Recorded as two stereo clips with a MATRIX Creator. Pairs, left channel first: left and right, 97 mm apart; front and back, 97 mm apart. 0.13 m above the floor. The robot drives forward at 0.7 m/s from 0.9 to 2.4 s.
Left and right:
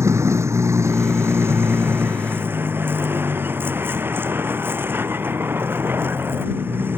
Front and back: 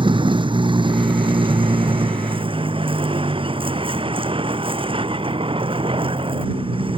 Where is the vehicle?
150° right; by 7.0 s 160° right.